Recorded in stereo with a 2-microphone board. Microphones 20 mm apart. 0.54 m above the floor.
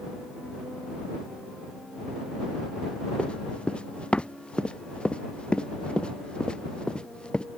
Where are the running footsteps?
70° left (ahead or behind); by 7.5 s 55° left (ahead or behind).